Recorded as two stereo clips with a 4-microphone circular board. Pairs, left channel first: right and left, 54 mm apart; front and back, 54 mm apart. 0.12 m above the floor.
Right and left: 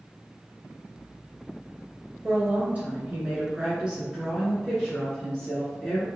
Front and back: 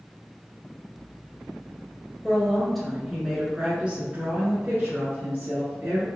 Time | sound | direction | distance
2.2 | a woman speaking | 75° left | 1.4 m